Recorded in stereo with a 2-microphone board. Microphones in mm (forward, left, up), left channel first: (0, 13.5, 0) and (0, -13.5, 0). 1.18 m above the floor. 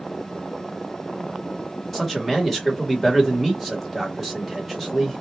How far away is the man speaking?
About 1.4 m.